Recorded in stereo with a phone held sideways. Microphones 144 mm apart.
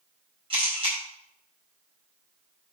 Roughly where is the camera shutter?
Right.